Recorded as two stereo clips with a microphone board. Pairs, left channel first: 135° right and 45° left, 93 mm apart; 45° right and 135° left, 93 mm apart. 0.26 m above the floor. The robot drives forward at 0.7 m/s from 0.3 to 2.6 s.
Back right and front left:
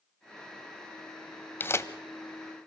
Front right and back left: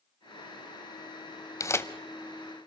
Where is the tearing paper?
80° right, 0.8 m; by 1.9 s 95° right, 0.8 m.